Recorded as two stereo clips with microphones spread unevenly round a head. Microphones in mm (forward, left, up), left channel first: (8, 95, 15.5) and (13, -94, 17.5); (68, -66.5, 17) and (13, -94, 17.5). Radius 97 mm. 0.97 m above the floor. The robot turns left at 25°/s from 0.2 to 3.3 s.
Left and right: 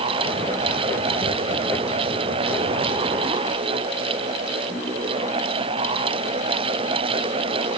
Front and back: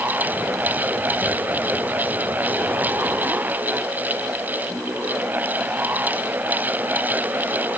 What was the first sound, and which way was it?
Only background noise.